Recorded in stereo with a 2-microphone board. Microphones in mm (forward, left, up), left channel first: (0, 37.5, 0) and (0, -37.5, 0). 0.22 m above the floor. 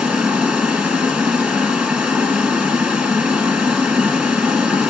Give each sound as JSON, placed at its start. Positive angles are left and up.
{"t": 0.0, "sound": "running water", "side_deg": -10, "distance_m": 2.0}